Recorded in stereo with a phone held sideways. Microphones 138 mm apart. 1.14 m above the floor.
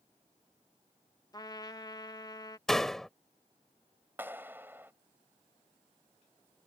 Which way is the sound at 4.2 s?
15° right (ahead or behind).